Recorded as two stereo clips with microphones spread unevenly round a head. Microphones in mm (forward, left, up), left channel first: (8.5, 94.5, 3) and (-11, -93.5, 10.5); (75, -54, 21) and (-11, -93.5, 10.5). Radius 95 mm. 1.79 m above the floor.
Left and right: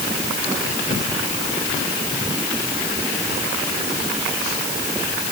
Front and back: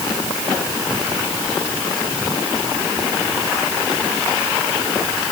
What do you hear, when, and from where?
Only background noise.